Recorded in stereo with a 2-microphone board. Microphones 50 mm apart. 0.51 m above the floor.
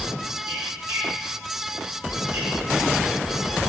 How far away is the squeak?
About 1.5 m.